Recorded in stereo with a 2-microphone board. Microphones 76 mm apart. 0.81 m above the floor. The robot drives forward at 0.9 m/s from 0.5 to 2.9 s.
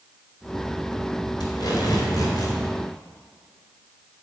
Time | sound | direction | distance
1.4 | tape being pulled | 70° left (ahead or behind) | 3 m